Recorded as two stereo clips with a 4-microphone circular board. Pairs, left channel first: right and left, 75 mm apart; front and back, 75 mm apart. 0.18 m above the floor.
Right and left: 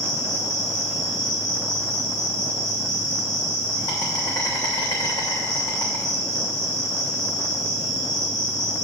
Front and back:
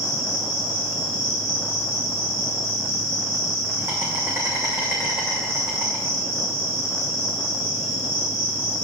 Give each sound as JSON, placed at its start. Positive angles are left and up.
{"t": 0.0, "sound": "an insect", "azimuth_deg": -120, "distance_m": 3.0}